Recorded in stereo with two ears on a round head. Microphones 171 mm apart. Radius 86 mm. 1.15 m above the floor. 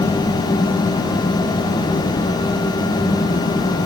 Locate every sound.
Only background noise.